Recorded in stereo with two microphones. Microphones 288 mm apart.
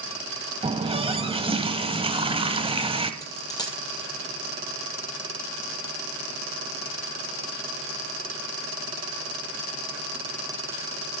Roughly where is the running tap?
Centre.